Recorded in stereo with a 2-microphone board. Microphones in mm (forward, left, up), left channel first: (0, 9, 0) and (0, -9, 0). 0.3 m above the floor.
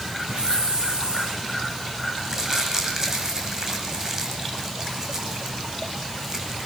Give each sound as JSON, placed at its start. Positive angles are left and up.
{"t": 0.3, "sound": "a hiss", "side_deg": -70, "distance_m": 9.5}
{"t": 2.2, "sound": "crumpling", "side_deg": -25, "distance_m": 9.5}